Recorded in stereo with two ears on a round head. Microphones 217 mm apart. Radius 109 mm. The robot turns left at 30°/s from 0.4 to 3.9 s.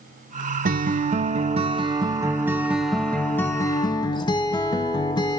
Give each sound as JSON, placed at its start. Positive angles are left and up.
{"t": 0.7, "sound": "a guitar", "azimuth_deg": -110, "distance_m": 0.6}